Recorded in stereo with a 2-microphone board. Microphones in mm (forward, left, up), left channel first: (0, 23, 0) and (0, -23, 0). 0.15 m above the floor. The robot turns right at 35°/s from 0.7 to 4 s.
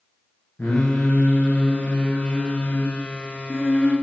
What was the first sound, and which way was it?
Singing, 70° left.